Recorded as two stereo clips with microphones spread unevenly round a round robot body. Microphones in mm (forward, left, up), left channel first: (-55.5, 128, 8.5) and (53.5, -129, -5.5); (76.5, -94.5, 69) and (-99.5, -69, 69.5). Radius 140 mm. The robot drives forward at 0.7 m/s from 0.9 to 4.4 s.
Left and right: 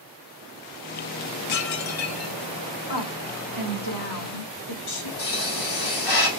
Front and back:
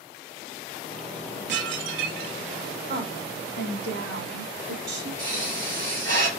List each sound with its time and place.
1.5 s dishes clattering: 140° left, 0.9 m; by 2.4 s 155° left, 1.4 m
2.9 s a woman speaking: 125° left, 2.5 m; by 5.1 s 140° left, 3.5 m
5.2 s a pop: 120° left, 3.5 m